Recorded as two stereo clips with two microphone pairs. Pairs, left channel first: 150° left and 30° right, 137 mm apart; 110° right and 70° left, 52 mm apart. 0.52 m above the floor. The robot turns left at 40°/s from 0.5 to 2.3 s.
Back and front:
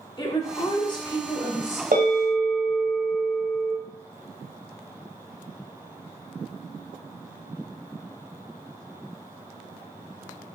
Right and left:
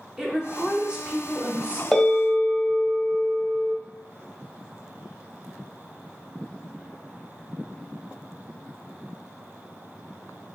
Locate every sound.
0.2 s a woman speaking: 150° left, 0.8 m; by 1.8 s 95° left, 0.8 m
1.9 s a bell: 30° right, 1.6 m; by 3.7 s 45° right, 1.6 m